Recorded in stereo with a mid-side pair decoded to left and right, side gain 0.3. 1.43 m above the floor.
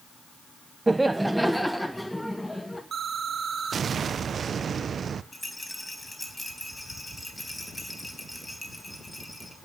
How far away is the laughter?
About 0.6 m.